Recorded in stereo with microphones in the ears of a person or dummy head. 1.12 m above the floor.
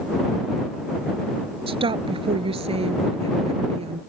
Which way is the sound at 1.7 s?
25° right (ahead or behind).